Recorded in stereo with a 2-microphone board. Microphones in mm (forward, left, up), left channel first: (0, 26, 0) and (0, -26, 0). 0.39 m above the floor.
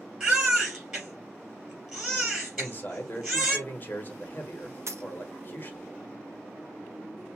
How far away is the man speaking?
About 1.1 m.